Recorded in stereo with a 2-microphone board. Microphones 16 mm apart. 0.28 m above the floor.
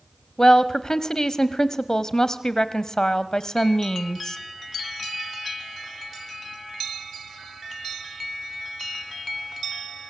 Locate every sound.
0.4 s a woman speaking: 30° left (ahead or behind), 1.3 m